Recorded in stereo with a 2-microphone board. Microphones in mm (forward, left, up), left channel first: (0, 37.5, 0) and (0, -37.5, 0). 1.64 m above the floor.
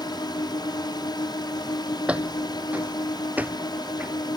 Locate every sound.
0.0 s a drone: 70° left (ahead or behind)
2.1 s footsteps: 15° right (ahead or behind); by 4.1 s 20° right (ahead or behind)